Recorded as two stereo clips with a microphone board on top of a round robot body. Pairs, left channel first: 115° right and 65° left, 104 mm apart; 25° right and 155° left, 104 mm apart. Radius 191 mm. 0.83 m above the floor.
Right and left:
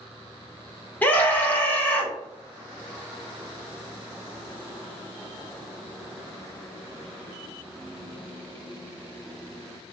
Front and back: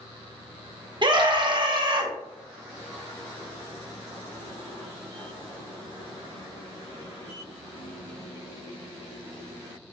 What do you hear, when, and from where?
1.0 s a scream: straight behind, 1.3 m